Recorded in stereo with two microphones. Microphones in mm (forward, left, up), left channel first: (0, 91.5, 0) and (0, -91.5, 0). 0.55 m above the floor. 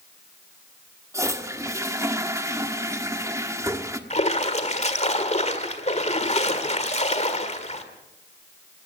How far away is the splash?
About 1.7 m.